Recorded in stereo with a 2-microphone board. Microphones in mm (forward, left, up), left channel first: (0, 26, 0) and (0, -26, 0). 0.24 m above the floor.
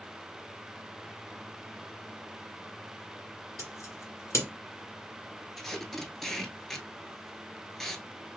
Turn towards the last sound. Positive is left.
turn(degrees=5)  # may be behind; listen again after turning